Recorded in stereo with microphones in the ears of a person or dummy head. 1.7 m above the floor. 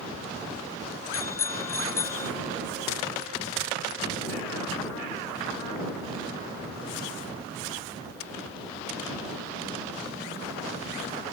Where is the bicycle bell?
15° left (ahead or behind).